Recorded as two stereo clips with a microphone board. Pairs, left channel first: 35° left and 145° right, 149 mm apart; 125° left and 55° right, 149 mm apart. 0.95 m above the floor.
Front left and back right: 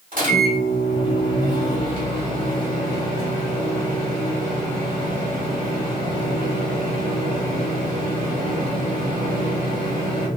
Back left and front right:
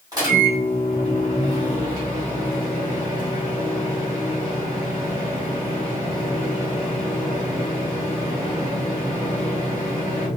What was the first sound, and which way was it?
A microwave, 120° right.